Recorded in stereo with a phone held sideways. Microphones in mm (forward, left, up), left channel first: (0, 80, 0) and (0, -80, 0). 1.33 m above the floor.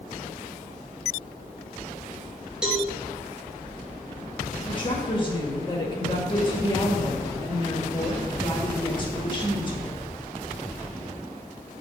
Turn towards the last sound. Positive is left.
turn(degrees=30)  # may be behind; listen again after turning